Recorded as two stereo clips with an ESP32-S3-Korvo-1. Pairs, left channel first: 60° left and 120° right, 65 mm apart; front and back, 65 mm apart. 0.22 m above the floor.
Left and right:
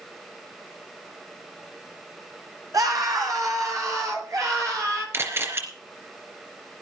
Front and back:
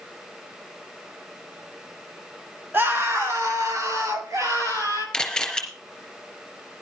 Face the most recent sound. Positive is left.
turn(degrees=-80)